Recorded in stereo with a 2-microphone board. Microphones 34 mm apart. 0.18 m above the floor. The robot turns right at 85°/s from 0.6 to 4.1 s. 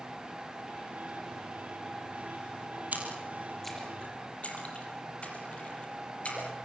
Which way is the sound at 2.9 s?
55° right (ahead or behind).